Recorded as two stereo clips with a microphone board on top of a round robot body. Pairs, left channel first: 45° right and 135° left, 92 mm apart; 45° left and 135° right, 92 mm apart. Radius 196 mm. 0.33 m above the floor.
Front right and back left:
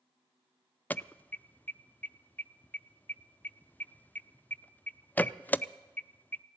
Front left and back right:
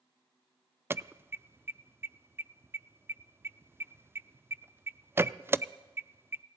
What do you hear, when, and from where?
0.9 s an alarm: 100° right, 0.6 m